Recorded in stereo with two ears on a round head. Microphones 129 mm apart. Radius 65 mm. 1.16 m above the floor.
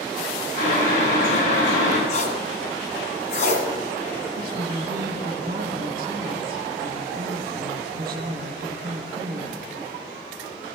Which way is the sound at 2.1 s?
55° left (ahead or behind).